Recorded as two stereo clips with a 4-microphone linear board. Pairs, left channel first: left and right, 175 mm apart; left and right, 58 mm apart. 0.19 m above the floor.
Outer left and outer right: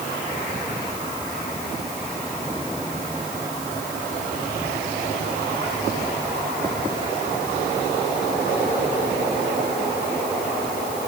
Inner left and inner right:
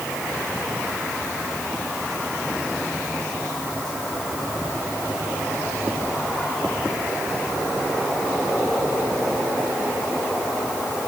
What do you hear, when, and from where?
Only background noise.